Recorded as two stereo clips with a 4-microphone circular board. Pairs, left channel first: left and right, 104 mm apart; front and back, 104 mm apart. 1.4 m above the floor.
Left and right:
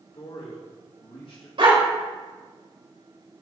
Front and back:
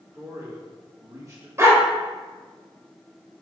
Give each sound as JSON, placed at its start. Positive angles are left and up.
{"t": 0.1, "sound": "a man speaking", "azimuth_deg": 120, "distance_m": 2.5}
{"t": 1.6, "sound": "a dog barking", "azimuth_deg": -120, "distance_m": 2.5}